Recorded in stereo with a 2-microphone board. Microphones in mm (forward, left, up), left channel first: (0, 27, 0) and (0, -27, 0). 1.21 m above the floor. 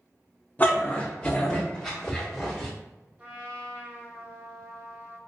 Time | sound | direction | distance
0.6 | a dog barking | 30° left (ahead or behind) | 0.7 m
3.2 | a trumpet | 30° right (ahead or behind) | 0.8 m